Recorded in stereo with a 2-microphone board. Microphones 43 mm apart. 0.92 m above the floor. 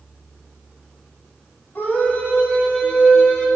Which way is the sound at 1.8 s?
45° left (ahead or behind).